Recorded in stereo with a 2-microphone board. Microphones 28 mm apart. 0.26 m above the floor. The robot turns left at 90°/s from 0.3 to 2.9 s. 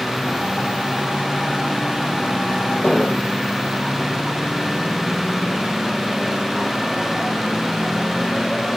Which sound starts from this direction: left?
An explosion, at 2.8 s.